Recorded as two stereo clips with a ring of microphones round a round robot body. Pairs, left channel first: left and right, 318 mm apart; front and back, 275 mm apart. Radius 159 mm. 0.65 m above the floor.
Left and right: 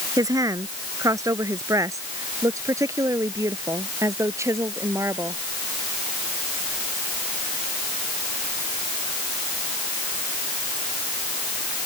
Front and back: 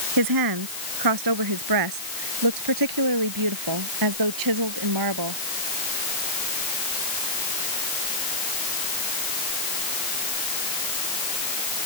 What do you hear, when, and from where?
0.2 s a woman speaking: 170° right